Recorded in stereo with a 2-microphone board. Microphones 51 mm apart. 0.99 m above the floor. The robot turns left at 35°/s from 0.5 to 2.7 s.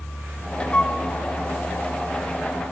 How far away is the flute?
About 0.9 m.